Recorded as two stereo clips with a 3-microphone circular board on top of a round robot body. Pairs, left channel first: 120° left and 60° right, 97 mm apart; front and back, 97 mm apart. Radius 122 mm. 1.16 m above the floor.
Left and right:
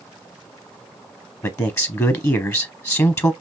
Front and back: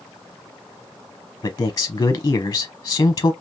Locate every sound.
1.4 s a man speaking: 60° left, 0.7 m